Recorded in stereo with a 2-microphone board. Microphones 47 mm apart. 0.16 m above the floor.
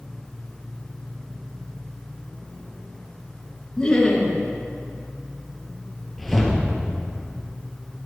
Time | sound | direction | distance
3.8 | laughter | 20° left (ahead or behind) | 2.5 m
6.2 | a whoosh | 5° left (ahead or behind) | 1.8 m